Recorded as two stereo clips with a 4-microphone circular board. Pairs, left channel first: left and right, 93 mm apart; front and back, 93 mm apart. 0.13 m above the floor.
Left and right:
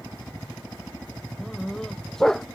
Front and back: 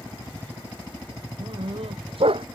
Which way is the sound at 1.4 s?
175° left.